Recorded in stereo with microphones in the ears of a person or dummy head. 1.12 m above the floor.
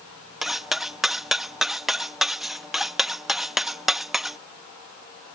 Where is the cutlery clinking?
5° left (ahead or behind).